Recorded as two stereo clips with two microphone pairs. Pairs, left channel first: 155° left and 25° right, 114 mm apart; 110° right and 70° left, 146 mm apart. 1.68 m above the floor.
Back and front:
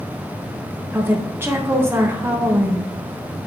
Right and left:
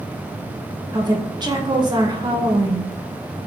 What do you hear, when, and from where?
0.9 s a woman speaking: 25° left, 0.7 m